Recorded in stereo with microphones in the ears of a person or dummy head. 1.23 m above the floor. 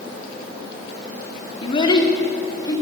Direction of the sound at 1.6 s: 30° left (ahead or behind).